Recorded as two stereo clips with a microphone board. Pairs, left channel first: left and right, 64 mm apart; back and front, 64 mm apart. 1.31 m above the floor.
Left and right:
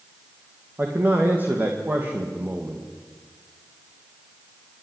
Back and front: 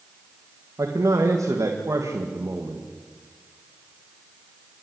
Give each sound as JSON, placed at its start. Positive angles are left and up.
{"t": 0.8, "sound": "a man speaking", "azimuth_deg": -30, "distance_m": 2.0}